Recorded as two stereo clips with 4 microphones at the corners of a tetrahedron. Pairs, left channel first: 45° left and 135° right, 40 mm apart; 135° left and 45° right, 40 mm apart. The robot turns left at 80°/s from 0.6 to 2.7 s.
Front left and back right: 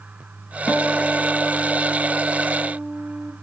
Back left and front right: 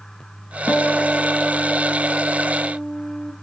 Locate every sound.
0.7 s a guitar: 90° left, 0.9 m; by 3.3 s 75° right, 0.9 m